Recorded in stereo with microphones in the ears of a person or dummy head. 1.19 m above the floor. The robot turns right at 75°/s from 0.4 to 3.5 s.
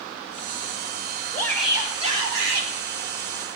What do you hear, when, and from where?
1.3 s a shout: 160° left, 3.5 m; by 2.7 s 100° right, 3.5 m